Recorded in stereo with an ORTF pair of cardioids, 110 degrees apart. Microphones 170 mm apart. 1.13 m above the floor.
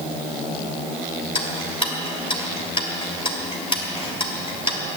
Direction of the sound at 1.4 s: 30° left.